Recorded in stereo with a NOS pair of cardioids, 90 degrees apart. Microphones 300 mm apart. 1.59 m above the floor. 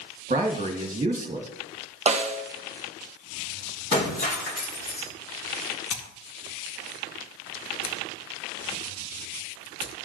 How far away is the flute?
I don't hear a flute.